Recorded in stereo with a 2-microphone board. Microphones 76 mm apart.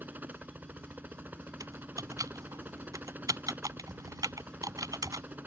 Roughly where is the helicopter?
Right.